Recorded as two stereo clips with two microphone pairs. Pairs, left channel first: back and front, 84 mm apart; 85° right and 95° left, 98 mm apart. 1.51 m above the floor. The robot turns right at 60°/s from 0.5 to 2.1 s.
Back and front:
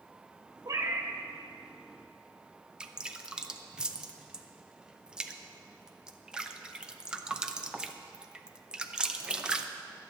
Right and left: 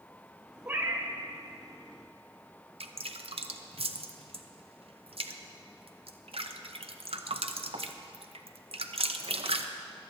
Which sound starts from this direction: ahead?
A cat meowing, at 0.7 s.